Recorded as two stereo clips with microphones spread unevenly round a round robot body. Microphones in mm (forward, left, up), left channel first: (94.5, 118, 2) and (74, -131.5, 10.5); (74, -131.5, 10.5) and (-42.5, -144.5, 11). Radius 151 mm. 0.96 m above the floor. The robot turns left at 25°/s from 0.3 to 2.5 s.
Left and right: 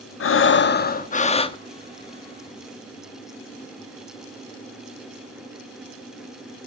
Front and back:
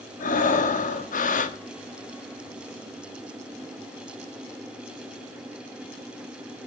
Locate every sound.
0.2 s breathing: 45° left, 1.1 m; by 1.6 s 10° left, 1.1 m